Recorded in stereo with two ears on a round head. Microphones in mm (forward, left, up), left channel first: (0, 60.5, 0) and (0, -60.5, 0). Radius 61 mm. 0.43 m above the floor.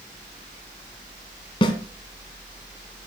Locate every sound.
1.6 s a snare drum: 35° left (ahead or behind), 2.5 m